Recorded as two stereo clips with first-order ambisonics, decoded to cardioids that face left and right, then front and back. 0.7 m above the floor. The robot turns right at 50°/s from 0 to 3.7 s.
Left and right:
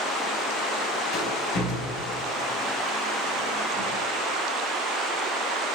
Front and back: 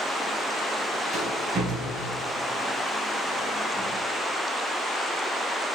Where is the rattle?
110° left, 3 m; by 3.9 s 120° right, 3 m.